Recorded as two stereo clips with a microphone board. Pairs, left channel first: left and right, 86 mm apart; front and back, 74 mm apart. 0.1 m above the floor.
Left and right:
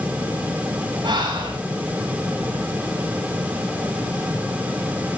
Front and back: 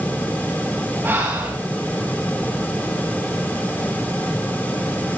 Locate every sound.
1.0 s breathing: 115° right, 10 m